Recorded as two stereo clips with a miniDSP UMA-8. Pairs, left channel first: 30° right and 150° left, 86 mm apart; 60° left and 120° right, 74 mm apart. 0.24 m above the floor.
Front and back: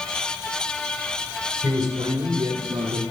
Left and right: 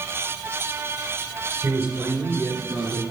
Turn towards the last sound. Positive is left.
turn(degrees=155)